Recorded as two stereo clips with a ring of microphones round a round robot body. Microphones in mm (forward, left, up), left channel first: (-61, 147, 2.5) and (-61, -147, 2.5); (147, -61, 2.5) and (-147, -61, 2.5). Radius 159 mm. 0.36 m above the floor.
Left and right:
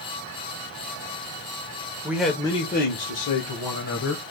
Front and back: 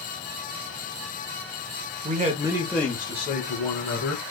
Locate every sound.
2.0 s a man speaking: 160° right, 0.9 m; by 4.2 s 55° left, 1.8 m